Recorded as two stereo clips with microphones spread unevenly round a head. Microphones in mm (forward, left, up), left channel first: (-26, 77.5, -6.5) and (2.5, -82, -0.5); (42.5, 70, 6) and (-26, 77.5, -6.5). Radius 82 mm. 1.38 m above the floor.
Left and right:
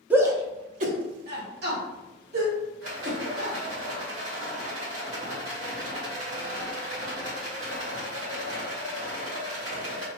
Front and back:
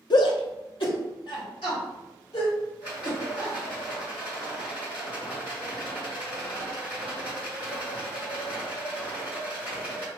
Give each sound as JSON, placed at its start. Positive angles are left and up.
{"t": 0.1, "sound": "a shout", "azimuth_deg": 0, "distance_m": 0.7}
{"t": 2.8, "sound": "a rattle", "azimuth_deg": -65, "distance_m": 1.6}